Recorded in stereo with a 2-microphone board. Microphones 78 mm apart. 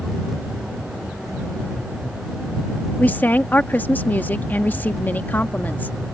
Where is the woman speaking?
25° left (ahead or behind).